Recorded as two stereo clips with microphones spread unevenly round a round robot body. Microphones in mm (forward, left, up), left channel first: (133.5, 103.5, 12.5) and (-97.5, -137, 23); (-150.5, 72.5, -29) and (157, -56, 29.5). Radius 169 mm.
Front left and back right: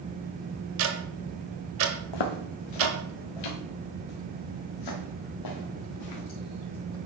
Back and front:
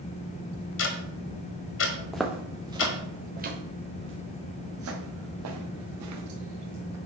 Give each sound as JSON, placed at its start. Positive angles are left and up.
{"t": 0.8, "sound": "ticking", "azimuth_deg": -175, "distance_m": 1.5}
{"t": 2.1, "sound": "footsteps", "azimuth_deg": 65, "distance_m": 1.3}